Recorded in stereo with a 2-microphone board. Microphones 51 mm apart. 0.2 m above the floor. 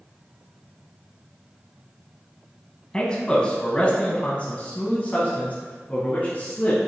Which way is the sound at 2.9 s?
15° left (ahead or behind).